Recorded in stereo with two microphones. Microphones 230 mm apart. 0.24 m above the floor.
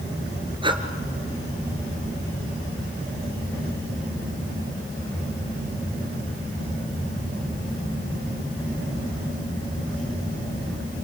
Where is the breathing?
20° right (ahead or behind), 1.7 m.